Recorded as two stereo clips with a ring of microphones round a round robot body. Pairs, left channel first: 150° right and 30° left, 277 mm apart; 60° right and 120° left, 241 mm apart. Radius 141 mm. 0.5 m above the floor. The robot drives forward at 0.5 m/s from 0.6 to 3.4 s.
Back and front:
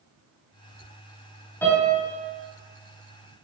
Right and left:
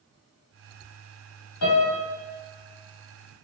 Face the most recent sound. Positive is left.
turn(degrees=-85)